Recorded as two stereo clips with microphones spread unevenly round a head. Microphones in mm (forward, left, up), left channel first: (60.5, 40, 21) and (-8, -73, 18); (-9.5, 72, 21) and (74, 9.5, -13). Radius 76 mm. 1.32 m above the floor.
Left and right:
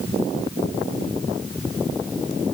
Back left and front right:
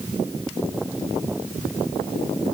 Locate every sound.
Only background noise.